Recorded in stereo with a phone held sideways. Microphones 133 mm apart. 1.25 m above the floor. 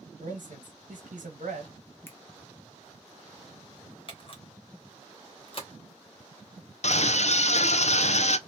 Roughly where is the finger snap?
Centre.